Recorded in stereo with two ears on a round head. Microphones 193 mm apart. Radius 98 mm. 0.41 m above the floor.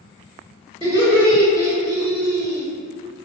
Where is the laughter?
20° right (ahead or behind), 1.3 m.